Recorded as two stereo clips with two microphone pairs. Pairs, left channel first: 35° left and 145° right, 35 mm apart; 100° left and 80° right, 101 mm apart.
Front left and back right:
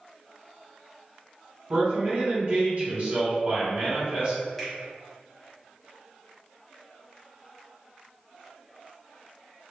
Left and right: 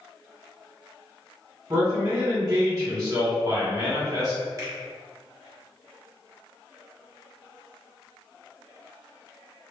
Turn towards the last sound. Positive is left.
turn(degrees=-50)